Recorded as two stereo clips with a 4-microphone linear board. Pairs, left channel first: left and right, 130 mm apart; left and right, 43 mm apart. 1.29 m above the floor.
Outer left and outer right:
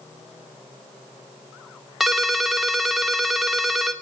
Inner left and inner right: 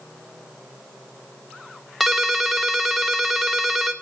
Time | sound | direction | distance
2.0 | a ringtone | centre (ahead or behind) | 0.9 m